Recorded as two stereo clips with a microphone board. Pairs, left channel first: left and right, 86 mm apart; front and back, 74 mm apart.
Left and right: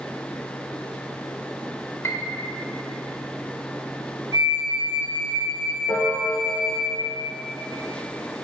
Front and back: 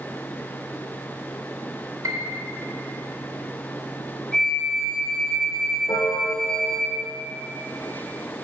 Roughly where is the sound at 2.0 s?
Behind left.